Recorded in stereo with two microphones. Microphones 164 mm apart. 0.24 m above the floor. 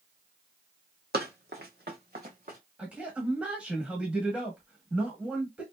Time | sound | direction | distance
1.1 | running footsteps | 75° right (ahead or behind) | 0.9 m
2.8 | a man speaking | 5° right (ahead or behind) | 0.9 m